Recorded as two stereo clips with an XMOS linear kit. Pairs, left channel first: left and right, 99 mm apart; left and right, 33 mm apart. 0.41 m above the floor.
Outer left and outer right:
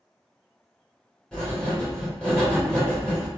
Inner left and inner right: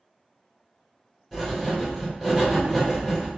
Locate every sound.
1.3 s writing: 10° left (ahead or behind), 1.3 m